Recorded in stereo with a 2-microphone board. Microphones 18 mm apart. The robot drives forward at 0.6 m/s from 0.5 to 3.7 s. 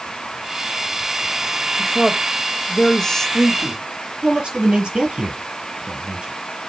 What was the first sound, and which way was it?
A woman speaking, 40° left (ahead or behind).